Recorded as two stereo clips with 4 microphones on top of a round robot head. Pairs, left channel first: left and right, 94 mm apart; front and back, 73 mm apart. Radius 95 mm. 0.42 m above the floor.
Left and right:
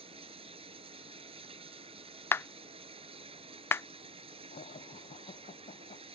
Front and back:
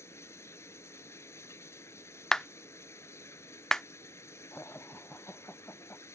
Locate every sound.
0.0 s running water: 60° right
2.3 s a clap: 75° left
4.5 s laughter: 65° left